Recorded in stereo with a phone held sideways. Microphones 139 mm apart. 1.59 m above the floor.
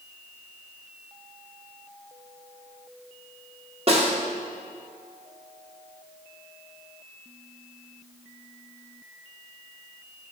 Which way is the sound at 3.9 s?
45° right (ahead or behind).